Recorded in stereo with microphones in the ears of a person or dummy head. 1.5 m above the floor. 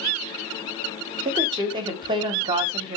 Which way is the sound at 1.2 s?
20° right (ahead or behind).